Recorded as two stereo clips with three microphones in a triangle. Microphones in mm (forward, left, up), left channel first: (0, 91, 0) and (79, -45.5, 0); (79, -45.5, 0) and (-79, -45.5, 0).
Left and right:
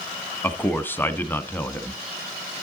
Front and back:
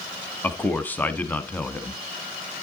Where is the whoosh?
I don't hear a whoosh.